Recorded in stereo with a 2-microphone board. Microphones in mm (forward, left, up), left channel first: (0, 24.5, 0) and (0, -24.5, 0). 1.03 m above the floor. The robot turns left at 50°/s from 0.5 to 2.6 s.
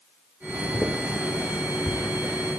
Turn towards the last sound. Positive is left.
turn(degrees=15)  # may be behind; listen again after turning